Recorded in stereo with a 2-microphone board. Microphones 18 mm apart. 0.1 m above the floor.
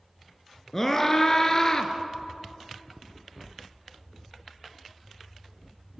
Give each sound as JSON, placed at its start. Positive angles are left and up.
{"t": 0.7, "sound": "a scream", "side_deg": 20, "distance_m": 1.6}